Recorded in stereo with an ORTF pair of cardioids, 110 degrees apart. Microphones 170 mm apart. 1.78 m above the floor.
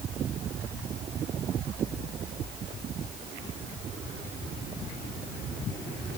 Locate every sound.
Only background noise.